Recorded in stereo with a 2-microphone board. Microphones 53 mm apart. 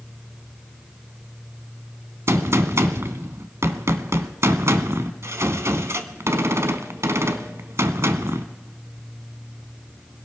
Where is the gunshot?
65° right (ahead or behind), 1.0 m.